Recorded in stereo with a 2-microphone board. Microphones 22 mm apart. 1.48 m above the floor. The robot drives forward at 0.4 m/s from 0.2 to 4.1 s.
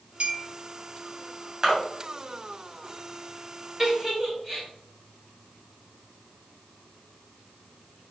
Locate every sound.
0.2 s a clink: 65° right (ahead or behind), 1.6 m; by 0.5 s 70° right (ahead or behind), 1.6 m
1.6 s a splash: 25° right (ahead or behind), 3 m
3.8 s a giggle: 5° right (ahead or behind), 3 m